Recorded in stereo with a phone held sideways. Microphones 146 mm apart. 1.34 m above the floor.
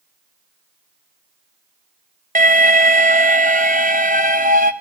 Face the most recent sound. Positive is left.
turn(degrees=-75)  # may be behind; listen again after turning